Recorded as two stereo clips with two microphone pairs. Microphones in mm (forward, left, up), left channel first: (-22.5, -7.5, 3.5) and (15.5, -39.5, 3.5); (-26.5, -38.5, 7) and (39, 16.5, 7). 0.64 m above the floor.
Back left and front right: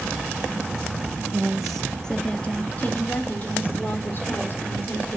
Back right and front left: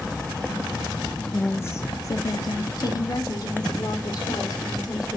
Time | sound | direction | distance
1.3 | a woman speaking | 90° right | 0.7 m